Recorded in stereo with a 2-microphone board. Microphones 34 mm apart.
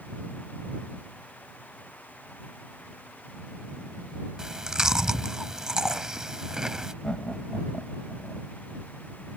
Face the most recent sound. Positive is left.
turn(degrees=25)  # may be behind; listen again after turning